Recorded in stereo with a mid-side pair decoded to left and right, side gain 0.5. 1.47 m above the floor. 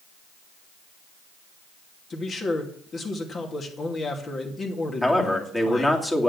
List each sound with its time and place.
2.1 s a man speaking: 40° left, 2.5 m
5.0 s a man speaking: 15° left, 2.5 m